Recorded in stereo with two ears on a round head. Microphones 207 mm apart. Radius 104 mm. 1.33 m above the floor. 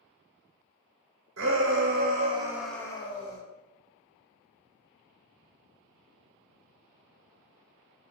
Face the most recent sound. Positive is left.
turn(degrees=35)  # may be behind; listen again after turning